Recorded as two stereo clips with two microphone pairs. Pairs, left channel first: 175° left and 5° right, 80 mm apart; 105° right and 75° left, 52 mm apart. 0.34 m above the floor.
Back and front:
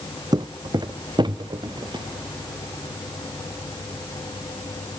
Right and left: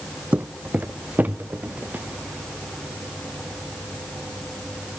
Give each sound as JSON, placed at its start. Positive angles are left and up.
{"t": 0.3, "sound": "footsteps", "azimuth_deg": 20, "distance_m": 0.6}